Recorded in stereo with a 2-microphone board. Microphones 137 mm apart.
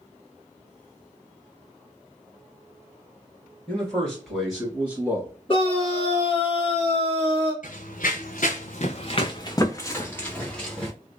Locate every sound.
3.7 s a man speaking: 10° left (ahead or behind), 2.0 m; by 5.3 s 20° right (ahead or behind), 1.6 m
5.5 s a scream: 35° left (ahead or behind), 2.0 m
7.6 s running footsteps: 75° left (ahead or behind), 0.8 m; by 10.9 s 5° left (ahead or behind), 1.3 m